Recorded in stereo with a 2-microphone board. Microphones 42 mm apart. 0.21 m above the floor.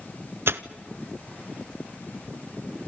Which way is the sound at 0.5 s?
70° right (ahead or behind).